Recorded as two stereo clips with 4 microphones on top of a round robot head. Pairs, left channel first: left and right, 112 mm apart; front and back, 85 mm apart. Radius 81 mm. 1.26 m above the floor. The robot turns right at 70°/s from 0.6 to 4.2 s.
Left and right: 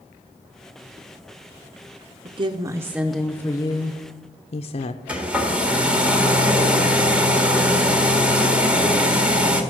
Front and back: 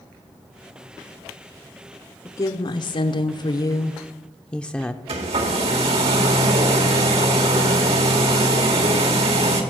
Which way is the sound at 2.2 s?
60° right.